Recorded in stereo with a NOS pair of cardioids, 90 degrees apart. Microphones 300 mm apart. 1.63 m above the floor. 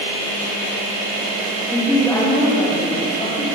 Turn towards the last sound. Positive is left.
turn(degrees=20)